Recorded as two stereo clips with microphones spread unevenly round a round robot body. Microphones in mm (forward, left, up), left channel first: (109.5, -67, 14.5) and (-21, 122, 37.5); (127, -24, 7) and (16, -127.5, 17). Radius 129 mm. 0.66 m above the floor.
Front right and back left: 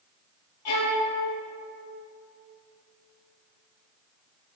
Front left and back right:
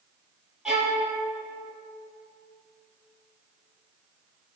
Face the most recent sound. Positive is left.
turn(degrees=-50)